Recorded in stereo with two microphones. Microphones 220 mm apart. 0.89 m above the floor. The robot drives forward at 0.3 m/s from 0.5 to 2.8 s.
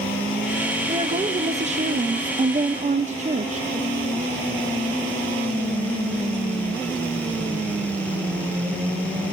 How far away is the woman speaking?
About 0.7 m.